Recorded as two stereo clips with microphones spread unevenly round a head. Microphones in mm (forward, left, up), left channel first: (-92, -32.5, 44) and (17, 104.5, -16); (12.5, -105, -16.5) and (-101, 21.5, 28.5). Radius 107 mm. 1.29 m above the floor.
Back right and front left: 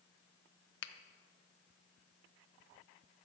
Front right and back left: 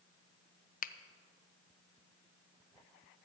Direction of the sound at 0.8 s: 85° right.